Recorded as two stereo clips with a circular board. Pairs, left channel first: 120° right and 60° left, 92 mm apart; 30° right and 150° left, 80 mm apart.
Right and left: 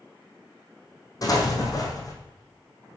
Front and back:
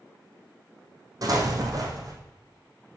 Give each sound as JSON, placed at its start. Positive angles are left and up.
{"t": 1.2, "sound": "an explosion", "azimuth_deg": -170, "distance_m": 2.0}